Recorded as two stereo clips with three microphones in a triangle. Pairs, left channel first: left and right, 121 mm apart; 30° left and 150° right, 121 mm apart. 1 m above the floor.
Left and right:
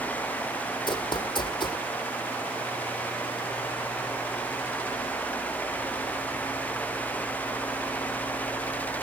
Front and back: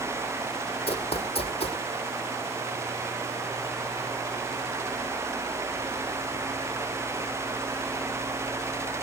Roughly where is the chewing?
No chewing in this recording.